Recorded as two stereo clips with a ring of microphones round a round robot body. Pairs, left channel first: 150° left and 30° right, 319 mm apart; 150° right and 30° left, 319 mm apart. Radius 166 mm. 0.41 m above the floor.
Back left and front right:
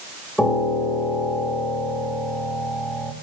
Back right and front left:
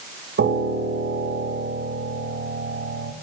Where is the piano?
65° left, 1.7 m.